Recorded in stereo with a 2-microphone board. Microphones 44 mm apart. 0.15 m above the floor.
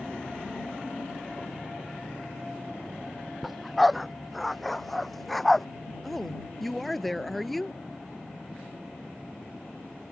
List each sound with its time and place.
3.4 s a dog barking: centre (ahead or behind); by 5.7 s 5° left (ahead or behind)
6.0 s a woman speaking: 5° left (ahead or behind)